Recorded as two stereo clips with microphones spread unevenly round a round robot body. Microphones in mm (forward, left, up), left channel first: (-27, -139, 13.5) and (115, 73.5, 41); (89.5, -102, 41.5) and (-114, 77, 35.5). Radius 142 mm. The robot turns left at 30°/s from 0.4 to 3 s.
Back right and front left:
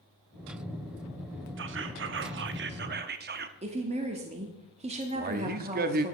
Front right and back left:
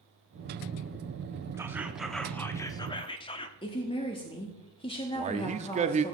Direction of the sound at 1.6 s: 65° left.